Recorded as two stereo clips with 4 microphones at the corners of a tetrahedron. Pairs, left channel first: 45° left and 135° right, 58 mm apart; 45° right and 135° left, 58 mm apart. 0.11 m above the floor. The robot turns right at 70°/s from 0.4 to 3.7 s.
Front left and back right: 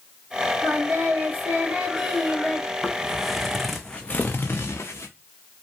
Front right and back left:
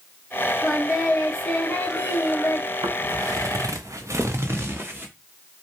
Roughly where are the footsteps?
Behind left.